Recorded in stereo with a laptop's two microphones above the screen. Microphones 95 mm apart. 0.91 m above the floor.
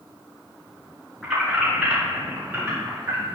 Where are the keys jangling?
5° right (ahead or behind), 3 m; by 3.3 s 30° right (ahead or behind), 3 m.